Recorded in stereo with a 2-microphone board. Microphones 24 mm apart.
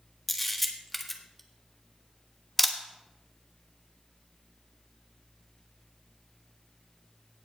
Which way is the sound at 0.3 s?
5° left (ahead or behind).